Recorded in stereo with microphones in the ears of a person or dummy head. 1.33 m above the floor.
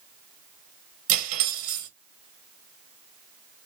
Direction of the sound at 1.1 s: 45° right (ahead or behind).